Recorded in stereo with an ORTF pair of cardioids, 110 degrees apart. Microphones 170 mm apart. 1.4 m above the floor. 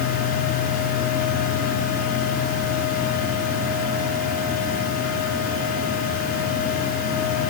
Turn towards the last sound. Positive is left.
turn(degrees=60)